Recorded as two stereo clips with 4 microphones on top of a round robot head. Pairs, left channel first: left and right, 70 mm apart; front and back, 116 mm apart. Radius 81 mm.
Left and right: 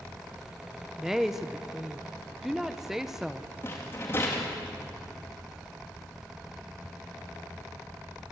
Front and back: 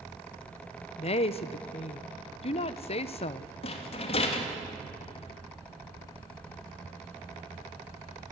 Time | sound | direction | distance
1.0 | a woman speaking | 5° right | 0.8 m
3.6 | a rattle | 25° left | 2.5 m